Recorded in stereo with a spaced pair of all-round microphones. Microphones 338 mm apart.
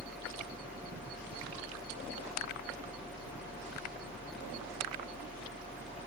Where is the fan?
5° right (ahead or behind), 1.5 m.